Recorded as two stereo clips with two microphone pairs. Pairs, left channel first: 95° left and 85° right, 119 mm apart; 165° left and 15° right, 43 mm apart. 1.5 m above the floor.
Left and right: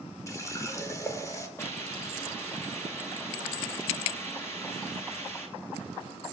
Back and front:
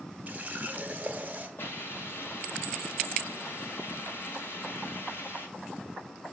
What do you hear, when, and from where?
0.3 s a running tap: 35° left, 1.1 m
1.6 s a hiss: 165° left, 2 m